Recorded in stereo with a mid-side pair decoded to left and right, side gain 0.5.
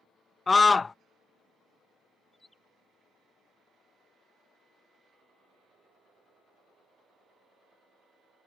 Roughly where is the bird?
Ahead.